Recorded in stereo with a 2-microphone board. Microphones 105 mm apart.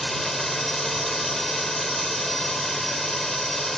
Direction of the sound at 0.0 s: Centre (ahead or behind).